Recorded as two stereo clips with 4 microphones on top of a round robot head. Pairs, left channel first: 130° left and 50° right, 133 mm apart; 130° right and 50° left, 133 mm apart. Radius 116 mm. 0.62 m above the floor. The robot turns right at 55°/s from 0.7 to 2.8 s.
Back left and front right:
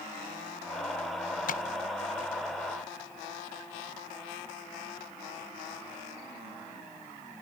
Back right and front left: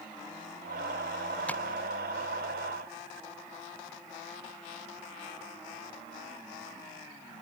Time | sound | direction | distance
1.5 | tapping | 150° left | ?